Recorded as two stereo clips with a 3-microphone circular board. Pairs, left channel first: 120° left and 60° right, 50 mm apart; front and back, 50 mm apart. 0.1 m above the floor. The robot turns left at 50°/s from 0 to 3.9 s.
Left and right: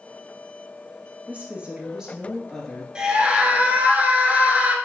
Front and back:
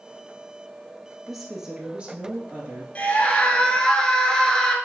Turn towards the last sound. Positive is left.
turn(degrees=-60)